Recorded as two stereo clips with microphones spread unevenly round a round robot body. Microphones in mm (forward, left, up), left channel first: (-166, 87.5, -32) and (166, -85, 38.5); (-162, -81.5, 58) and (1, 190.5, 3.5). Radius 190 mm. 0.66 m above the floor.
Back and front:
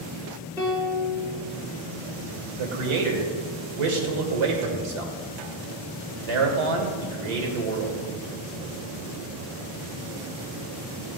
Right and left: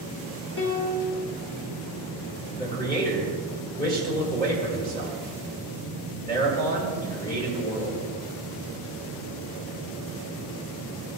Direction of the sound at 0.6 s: 110° right.